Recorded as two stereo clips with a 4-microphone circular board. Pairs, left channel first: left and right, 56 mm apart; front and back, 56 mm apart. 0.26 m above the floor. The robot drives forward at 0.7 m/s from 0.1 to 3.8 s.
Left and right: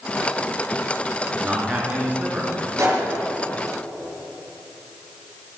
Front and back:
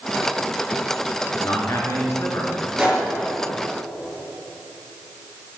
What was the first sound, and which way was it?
A man speaking, 25° right.